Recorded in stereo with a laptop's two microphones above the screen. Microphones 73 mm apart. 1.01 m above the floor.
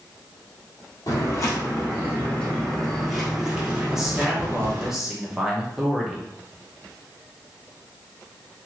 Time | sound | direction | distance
1.1 | footsteps | 40° left (ahead or behind) | 1.5 m
3.9 | a man speaking | 5° right (ahead or behind) | 0.8 m